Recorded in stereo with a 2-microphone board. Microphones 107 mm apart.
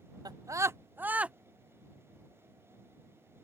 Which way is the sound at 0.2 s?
40° right (ahead or behind).